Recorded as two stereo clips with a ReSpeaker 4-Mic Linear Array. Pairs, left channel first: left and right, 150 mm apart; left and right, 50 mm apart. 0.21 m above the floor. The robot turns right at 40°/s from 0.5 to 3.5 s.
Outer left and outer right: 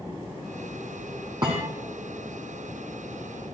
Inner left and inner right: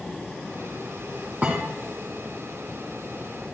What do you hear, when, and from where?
1.4 s a thud: 30° right (ahead or behind), 3.5 m; by 1.7 s 40° right (ahead or behind), 3.5 m